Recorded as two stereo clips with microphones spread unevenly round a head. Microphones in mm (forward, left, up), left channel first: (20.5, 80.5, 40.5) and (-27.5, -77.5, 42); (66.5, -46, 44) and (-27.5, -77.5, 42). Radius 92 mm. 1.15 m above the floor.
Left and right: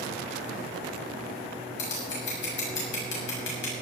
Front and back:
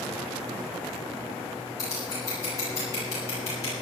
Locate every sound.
1.8 s scissors: 85° left, 7 m